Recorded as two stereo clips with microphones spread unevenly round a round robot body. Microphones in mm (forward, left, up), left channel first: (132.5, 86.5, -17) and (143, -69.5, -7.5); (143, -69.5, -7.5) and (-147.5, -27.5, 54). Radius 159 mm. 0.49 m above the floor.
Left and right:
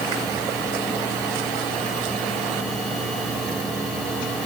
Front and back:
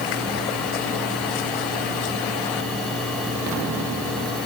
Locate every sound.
Only background noise.